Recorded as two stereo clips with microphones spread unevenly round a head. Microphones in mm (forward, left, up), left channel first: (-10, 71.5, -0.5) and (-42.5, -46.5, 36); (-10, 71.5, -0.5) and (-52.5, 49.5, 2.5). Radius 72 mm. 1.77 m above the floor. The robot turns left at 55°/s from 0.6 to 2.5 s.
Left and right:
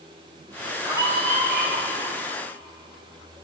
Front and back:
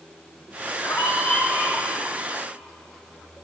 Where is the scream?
30° right, 4.5 m; by 1.9 s 85° right, 4.5 m.